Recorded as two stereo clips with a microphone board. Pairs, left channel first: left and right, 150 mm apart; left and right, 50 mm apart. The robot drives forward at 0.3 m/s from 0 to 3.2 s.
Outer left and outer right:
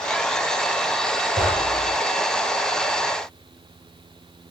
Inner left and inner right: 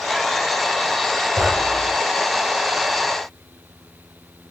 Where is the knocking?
70° right (ahead or behind), 8.5 m; by 1.9 s 75° right (ahead or behind), 8.5 m.